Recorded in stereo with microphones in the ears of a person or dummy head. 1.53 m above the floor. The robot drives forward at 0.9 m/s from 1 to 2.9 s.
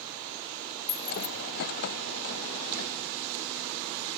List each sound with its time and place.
0.9 s keys jangling: 20° left (ahead or behind), 1.9 m; by 1.3 s 25° left (ahead or behind), 1.7 m